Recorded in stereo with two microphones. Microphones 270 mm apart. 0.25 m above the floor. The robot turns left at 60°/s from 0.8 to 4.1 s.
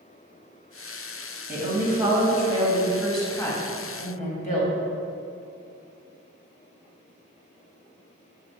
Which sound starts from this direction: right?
A woman speaking, at 1.5 s.